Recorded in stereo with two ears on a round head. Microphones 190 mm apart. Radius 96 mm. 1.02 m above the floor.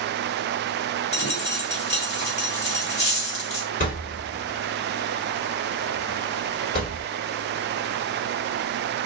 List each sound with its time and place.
1.1 s a dropped coin: 30° left (ahead or behind), 1.5 m
3.8 s a thud: 40° left (ahead or behind), 1.6 m